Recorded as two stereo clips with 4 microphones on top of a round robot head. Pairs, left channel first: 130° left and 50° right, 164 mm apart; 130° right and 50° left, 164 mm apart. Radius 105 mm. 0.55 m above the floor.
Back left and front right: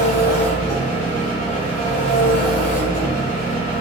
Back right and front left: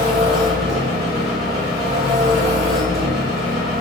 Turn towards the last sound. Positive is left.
turn(degrees=140)